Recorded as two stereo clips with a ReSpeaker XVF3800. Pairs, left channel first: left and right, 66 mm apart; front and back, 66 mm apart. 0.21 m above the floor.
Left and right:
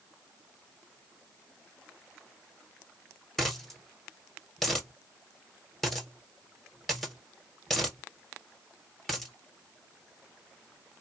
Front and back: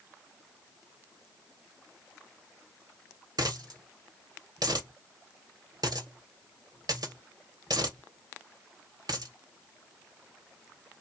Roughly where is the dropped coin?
Behind.